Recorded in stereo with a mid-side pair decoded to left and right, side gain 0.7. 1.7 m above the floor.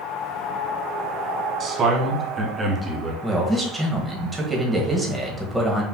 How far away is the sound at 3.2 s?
About 1.5 m.